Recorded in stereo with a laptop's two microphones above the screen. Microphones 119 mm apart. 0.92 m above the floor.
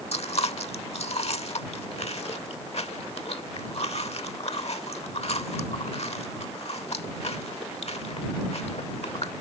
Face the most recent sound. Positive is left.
turn(degrees=60)  # may be behind; listen again after turning